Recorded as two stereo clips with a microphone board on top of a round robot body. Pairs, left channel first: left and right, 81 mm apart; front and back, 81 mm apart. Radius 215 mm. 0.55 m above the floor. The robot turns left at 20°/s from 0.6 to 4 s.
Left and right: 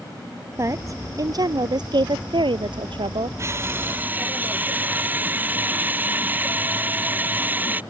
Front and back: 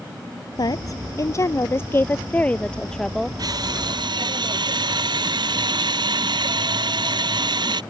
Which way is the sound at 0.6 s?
35° right.